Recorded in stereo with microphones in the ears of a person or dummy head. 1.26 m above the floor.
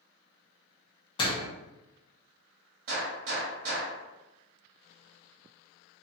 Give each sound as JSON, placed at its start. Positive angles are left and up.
{"t": 1.2, "sound": "a door slam", "side_deg": 25, "distance_m": 0.6}
{"t": 2.9, "sound": "a gunshot", "side_deg": -50, "distance_m": 1.2}